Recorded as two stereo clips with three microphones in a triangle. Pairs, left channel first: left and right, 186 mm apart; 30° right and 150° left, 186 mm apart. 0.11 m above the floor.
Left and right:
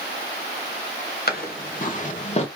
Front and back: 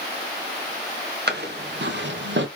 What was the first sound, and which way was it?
Footsteps, 120° left.